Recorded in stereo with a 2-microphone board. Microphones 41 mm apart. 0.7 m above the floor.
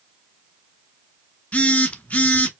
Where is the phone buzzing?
35° left (ahead or behind), 0.7 m.